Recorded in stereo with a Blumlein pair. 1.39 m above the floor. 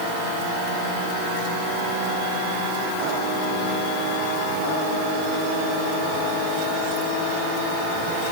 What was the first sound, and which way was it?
Only background noise.